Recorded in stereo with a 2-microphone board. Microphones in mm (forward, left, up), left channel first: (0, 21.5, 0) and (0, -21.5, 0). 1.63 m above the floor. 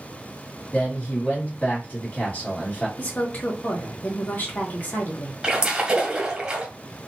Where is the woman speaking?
45° left (ahead or behind), 1.6 m.